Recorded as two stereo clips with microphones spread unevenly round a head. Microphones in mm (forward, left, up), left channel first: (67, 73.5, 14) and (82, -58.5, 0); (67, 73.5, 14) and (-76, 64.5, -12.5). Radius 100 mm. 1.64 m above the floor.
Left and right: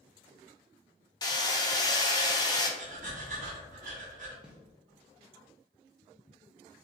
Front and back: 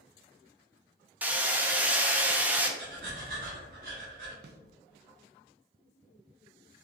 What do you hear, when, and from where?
1.2 s hammering: 95° left, 0.8 m
2.8 s breathing: 130° right, 1.7 m
4.4 s a snare drum: 175° right, 0.6 m